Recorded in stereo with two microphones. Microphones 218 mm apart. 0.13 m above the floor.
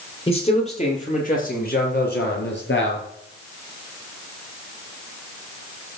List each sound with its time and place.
0.3 s a man speaking: 25° left (ahead or behind), 4 m; by 3.1 s 60° left (ahead or behind), 3 m